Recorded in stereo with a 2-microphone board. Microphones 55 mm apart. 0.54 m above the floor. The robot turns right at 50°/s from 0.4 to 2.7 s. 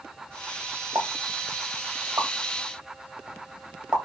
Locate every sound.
0.9 s a pop: 80° right, 1.2 m; by 4.0 s 15° right (ahead or behind), 1.2 m